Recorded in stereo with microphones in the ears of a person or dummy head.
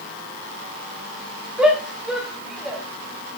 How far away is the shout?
About 2.5 m.